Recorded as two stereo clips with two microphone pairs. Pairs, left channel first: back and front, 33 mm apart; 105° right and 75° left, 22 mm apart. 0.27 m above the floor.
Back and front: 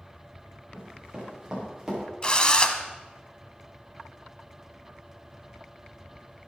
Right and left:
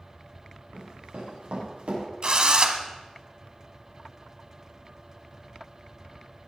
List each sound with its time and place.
0.7 s running footsteps: 65° left, 6 m; by 2.0 s 75° left, 7 m
2.2 s a drill: 120° left, 0.9 m